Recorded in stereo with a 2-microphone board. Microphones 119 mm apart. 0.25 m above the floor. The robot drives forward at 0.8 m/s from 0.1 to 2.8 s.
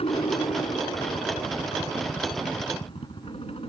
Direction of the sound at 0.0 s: 60° left (ahead or behind).